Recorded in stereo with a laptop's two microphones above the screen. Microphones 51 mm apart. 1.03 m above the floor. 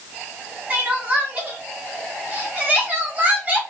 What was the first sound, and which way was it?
Crying, 30° right (ahead or behind).